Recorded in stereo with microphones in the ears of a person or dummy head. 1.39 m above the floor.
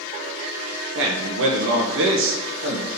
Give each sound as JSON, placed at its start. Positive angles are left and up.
{"t": 0.9, "sound": "a man speaking", "side_deg": -65, "distance_m": 1.4}